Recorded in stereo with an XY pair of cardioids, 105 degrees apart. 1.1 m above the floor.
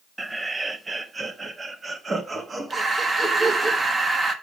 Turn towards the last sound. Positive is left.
turn(degrees=-30)